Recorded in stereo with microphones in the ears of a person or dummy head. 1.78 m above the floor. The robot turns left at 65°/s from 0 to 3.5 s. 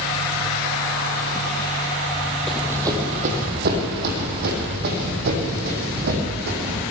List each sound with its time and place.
2.5 s running footsteps: centre (ahead or behind), 4 m; by 6.8 s 55° right (ahead or behind), 6.5 m